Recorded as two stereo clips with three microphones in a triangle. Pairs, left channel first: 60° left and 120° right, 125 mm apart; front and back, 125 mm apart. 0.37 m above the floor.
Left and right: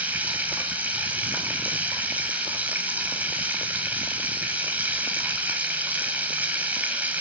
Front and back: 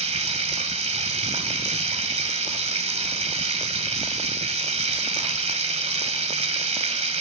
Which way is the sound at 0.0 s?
165° left.